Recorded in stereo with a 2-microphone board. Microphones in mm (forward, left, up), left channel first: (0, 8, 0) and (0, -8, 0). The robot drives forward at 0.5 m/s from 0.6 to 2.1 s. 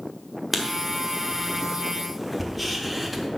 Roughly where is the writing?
Centre.